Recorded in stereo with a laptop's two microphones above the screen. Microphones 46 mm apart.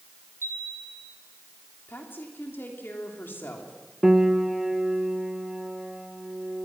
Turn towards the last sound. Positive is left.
turn(degrees=-10)  # may be behind; listen again after turning